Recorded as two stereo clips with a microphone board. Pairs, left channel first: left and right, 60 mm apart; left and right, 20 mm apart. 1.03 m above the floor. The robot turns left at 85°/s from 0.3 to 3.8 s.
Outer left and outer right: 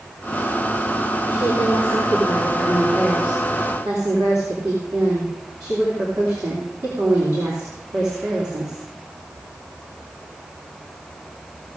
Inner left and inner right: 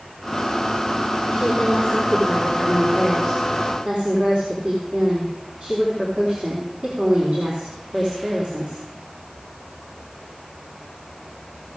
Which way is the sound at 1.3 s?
140° left.